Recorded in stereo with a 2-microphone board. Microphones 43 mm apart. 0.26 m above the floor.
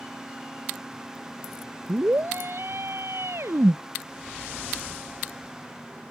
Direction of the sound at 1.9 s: 55° right (ahead or behind).